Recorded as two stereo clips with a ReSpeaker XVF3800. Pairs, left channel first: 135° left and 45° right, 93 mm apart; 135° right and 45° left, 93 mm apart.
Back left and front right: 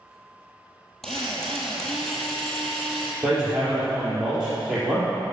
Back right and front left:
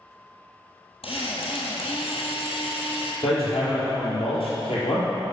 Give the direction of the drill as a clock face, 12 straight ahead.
5 o'clock.